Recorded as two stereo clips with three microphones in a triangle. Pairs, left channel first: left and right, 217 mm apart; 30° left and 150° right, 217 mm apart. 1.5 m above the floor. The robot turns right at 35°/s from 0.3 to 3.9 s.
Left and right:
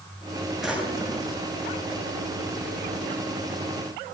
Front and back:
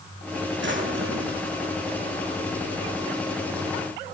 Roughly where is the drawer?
Behind.